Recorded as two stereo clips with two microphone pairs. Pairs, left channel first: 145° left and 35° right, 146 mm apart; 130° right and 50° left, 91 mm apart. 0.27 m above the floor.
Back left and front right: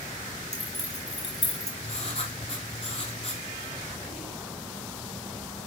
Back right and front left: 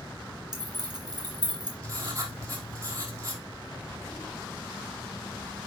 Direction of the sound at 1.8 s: 100° left.